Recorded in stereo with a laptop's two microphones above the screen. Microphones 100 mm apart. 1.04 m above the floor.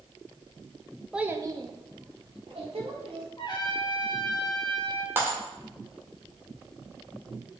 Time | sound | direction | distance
1.1 | a child speaking | 5° right (ahead or behind) | 0.6 m
3.4 | a trumpet | 45° left (ahead or behind) | 1.5 m
5.2 | breaking glass | 25° right (ahead or behind) | 1.4 m